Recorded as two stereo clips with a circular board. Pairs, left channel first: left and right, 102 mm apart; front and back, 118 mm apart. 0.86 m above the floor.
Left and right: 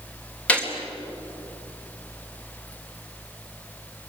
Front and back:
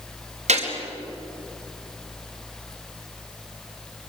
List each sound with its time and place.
0.5 s a gunshot: 165° left, 4 m